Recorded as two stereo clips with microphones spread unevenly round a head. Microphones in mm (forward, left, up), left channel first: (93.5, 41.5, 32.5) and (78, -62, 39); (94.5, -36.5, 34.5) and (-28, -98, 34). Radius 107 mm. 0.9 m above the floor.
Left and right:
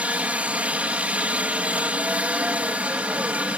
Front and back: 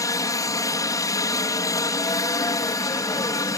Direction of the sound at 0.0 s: 25° right.